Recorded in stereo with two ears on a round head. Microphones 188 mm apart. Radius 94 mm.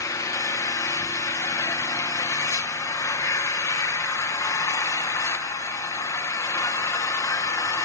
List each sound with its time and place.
0.0 s an engine running: 15° left (ahead or behind), 0.9 m